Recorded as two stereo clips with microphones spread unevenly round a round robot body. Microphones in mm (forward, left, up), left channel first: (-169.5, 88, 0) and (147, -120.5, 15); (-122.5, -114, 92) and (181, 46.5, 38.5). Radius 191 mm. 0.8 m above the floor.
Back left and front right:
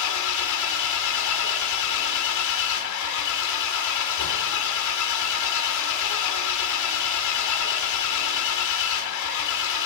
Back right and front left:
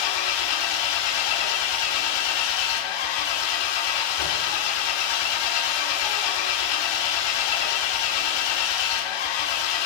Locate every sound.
0.0 s an engine running: 170° right, 2 m